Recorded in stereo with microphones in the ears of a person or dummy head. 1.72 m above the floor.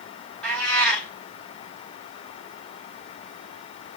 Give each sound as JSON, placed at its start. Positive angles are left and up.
{"t": 0.4, "sound": "a cat meowing", "side_deg": 5, "distance_m": 4.5}